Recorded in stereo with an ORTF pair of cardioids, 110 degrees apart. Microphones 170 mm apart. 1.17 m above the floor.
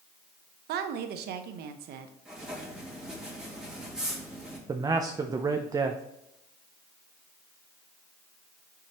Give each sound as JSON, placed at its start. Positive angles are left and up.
{"t": 0.7, "sound": "a woman speaking", "azimuth_deg": -70, "distance_m": 0.9}
{"t": 2.2, "sound": "writing", "azimuth_deg": -5, "distance_m": 2.0}
{"t": 4.7, "sound": "a man speaking", "azimuth_deg": -20, "distance_m": 0.5}